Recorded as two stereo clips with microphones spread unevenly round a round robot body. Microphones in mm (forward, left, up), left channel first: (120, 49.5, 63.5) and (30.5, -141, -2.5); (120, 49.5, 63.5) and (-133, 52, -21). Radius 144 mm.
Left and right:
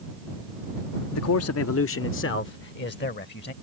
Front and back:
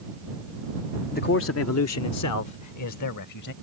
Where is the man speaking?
70° left; by 3.5 s 20° left.